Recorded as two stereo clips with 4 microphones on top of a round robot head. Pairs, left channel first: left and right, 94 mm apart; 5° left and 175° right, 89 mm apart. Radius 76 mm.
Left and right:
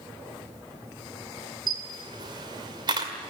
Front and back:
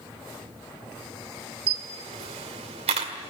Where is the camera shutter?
145° right, 1.9 m.